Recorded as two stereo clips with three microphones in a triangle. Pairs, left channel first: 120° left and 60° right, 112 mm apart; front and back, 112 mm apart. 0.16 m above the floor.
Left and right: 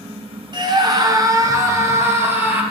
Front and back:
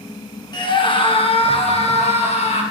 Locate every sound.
0.5 s a scream: 30° right, 1.7 m; by 2.6 s 15° left, 3.5 m